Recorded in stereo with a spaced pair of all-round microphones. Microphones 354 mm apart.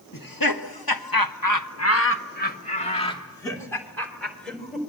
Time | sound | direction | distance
0.1 | laughter | 65° left (ahead or behind) | 1.9 m